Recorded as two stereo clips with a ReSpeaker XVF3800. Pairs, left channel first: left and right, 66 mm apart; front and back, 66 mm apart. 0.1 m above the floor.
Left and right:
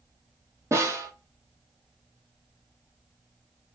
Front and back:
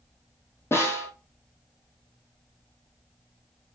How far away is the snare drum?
About 1.5 m.